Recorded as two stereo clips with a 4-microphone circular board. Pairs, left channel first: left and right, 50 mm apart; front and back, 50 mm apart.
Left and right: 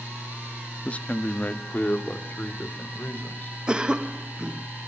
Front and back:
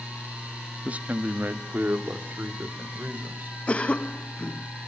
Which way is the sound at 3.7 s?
35° right.